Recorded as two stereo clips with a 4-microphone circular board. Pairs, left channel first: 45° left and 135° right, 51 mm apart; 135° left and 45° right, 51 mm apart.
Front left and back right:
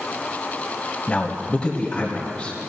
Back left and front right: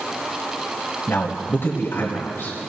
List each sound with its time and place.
1.1 s a man speaking: 110° left, 1.8 m